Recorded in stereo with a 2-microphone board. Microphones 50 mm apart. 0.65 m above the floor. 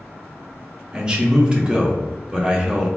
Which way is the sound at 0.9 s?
20° right (ahead or behind).